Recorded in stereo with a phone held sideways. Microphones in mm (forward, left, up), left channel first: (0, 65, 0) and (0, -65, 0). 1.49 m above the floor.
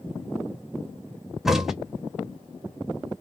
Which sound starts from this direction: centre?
A crack, at 1.4 s.